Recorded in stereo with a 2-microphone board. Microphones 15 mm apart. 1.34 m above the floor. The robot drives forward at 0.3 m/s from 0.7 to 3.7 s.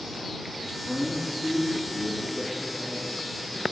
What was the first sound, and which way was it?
A man speaking, 25° left (ahead or behind).